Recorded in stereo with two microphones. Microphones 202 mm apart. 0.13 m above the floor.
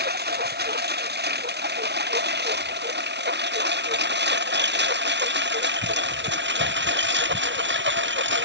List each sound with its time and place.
0.0 s a lawn mower: 55° right (ahead or behind); by 8.4 s 65° right (ahead or behind)